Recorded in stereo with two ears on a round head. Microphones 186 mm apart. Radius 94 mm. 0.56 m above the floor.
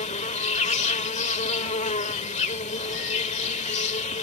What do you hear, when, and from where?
0.0 s an insect: 35° left (ahead or behind)